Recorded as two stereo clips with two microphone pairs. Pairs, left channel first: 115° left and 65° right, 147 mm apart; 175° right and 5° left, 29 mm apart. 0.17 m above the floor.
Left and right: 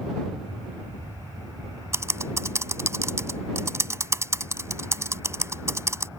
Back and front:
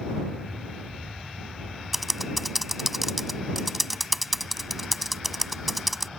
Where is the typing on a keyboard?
65° right.